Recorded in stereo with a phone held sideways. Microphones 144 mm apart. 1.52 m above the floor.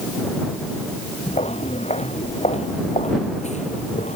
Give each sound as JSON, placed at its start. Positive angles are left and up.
{"t": 1.3, "sound": "footsteps", "side_deg": 45}